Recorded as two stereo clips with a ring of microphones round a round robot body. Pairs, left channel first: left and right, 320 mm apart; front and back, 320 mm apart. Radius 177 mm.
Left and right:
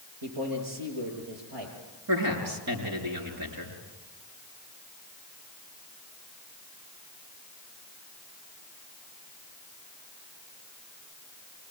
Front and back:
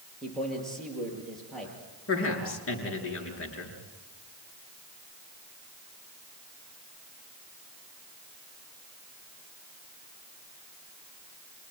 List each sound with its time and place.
0.2 s a man speaking: 90° right, 8.5 m
2.1 s a man speaking: 45° right, 7 m